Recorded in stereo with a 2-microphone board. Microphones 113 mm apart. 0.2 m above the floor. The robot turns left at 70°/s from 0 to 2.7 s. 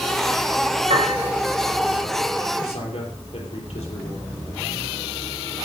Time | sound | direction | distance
0.9 | a piano | 80° right | 7.5 m
2.6 | a man speaking | 55° left (ahead or behind) | 5.5 m